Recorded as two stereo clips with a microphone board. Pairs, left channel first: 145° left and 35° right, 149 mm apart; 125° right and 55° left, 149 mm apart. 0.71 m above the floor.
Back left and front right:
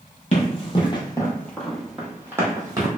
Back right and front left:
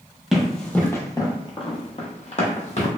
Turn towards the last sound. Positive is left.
turn(degrees=-95)